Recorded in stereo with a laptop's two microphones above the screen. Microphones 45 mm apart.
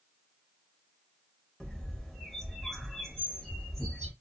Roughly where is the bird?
Centre.